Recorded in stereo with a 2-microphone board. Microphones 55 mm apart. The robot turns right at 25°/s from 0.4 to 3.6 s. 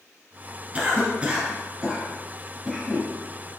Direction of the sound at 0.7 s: 25° right (ahead or behind).